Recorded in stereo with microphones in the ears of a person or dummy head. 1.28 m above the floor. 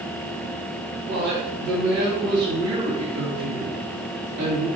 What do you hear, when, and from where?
1.1 s a woman speaking: 45° right (ahead or behind), 1.8 m